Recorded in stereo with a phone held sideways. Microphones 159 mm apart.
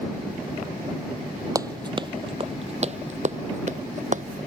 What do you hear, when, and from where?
1.6 s running footsteps: 20° right (ahead or behind); by 4.2 s 55° right (ahead or behind)